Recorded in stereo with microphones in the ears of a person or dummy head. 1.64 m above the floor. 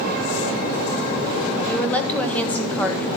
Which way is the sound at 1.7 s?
10° left (ahead or behind).